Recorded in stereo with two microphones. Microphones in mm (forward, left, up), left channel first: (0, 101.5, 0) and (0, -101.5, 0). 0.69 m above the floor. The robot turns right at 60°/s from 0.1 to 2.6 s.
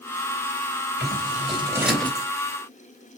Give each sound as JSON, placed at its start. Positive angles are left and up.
{"t": 1.0, "sound": "scissors", "side_deg": -55, "distance_m": 3.0}